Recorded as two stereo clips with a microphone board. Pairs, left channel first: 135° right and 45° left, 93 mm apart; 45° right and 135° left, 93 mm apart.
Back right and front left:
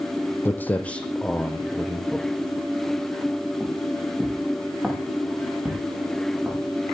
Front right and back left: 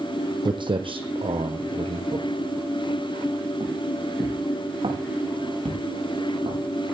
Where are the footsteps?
160° left, 1.9 m; by 6.6 s 125° left, 9.5 m.